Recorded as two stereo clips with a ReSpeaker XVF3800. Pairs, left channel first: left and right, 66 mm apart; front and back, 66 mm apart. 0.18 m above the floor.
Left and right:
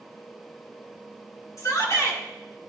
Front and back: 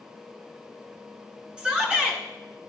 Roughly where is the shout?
Left.